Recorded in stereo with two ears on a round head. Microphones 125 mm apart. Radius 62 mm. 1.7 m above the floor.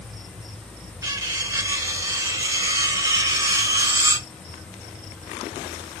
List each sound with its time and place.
1.0 s cutlery clinking: 25° right (ahead or behind), 1.0 m